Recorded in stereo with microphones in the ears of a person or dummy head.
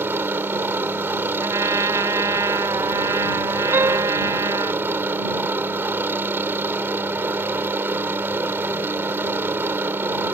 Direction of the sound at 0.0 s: 10° right (ahead or behind).